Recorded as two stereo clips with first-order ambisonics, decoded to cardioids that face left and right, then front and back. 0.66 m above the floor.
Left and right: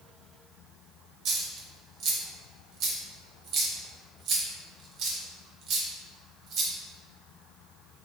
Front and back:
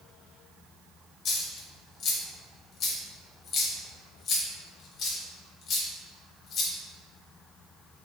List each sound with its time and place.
1.2 s a dropped coin: 50° right, 0.6 m